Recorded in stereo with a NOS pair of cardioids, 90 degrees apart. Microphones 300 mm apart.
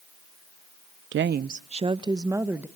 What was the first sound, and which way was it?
A woman speaking, 45° right.